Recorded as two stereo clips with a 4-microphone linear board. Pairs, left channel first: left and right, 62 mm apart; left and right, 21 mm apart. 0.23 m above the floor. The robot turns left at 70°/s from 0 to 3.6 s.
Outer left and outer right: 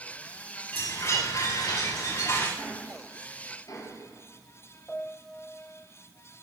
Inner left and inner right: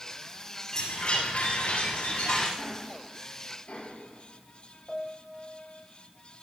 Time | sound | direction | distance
0.7 | a chime | 150° left | 9.5 m
2.6 | ticking | 10° left (ahead or behind) | 6.5 m
4.9 | a piano | 20° left (ahead or behind) | 1.8 m